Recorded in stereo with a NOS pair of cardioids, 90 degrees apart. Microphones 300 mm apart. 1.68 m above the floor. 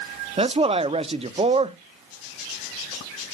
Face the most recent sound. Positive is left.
turn(degrees=-20)